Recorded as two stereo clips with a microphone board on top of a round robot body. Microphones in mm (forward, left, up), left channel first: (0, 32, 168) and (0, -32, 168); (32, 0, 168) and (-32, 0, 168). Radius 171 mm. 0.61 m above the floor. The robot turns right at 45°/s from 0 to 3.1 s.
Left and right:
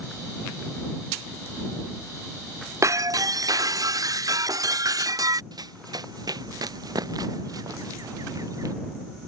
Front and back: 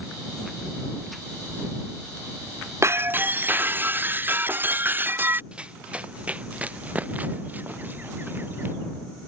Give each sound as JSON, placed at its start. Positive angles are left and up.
{"t": 2.8, "sound": "breaking glass", "azimuth_deg": -135}
{"t": 5.5, "sound": "running footsteps", "azimuth_deg": -105}